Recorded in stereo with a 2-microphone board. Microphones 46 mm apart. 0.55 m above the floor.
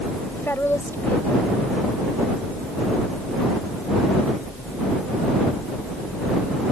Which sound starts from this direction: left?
A woman speaking, at 0.3 s.